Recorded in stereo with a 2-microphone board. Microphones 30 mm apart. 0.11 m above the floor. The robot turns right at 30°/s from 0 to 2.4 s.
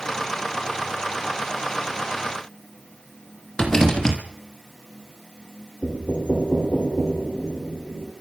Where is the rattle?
20° left (ahead or behind), 3 m.